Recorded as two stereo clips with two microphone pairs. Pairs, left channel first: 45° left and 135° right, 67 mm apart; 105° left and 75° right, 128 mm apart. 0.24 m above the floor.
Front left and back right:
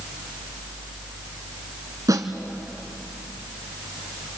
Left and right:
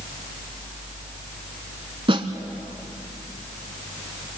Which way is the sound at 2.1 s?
115° right.